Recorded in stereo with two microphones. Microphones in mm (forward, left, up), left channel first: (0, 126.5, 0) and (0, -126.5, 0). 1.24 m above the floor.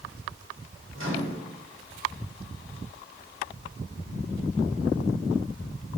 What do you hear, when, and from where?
0.9 s a microwave: 50° right (ahead or behind), 2.5 m